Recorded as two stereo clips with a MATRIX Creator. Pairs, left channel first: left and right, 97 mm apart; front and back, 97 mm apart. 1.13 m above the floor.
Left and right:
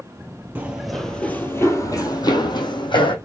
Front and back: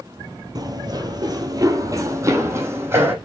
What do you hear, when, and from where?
0.6 s running footsteps: 160° right, 1.5 m; by 3.1 s 115° left, 3 m